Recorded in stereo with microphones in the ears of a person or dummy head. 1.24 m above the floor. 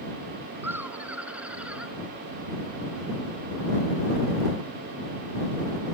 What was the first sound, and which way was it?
Laughter, 10° right (ahead or behind).